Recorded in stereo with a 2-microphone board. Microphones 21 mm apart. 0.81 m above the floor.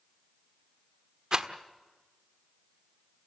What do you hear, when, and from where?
1.3 s a rattle: 35° right (ahead or behind), 1.3 m